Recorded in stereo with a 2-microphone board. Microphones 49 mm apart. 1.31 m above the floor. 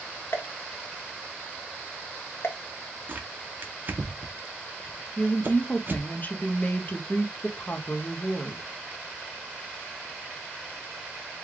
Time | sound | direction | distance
0.3 | a pop | 55° left (ahead or behind) | 0.8 m
3.1 | tearing paper | 40° right (ahead or behind) | 0.8 m
5.2 | a woman speaking | 35° left (ahead or behind) | 0.7 m